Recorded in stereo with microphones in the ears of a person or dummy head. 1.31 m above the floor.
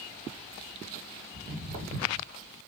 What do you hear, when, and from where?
1.3 s footsteps: 40° right (ahead or behind), 1.7 m